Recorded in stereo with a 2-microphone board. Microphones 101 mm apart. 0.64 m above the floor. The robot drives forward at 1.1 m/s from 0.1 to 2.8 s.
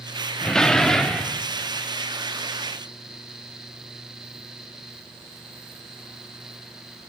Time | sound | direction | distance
0.4 | a door slam | 5° left (ahead or behind) | 0.6 m